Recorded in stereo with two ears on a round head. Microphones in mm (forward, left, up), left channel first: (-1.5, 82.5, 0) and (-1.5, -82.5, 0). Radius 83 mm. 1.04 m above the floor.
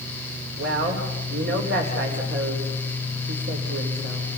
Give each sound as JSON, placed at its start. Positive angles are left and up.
{"t": 0.6, "sound": "a woman speaking", "side_deg": -60, "distance_m": 4.0}